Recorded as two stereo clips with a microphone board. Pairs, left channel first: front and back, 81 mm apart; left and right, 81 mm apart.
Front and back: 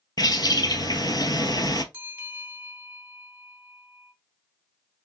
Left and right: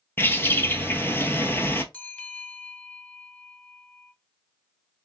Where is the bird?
30° left, 0.8 m.